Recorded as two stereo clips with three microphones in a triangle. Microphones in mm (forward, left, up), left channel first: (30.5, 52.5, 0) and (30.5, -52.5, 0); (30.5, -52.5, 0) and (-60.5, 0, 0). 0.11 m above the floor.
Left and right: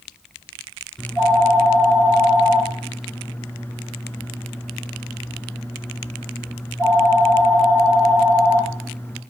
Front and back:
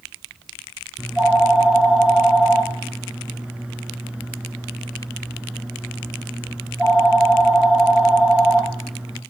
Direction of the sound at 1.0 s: 90° left.